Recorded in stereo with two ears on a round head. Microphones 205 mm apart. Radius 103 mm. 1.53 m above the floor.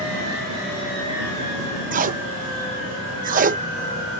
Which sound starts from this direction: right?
Tape being pulled, at 1.9 s.